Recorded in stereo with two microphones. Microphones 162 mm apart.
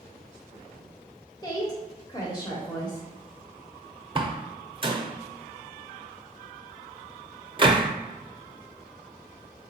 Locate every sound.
1.4 s a woman speaking: 25° left (ahead or behind), 0.9 m
4.2 s a door slam: 30° right (ahead or behind), 0.6 m